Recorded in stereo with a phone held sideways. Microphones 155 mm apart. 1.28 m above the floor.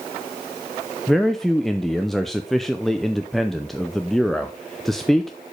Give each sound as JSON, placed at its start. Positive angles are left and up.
{"t": 1.1, "sound": "a man speaking", "side_deg": 0, "distance_m": 0.5}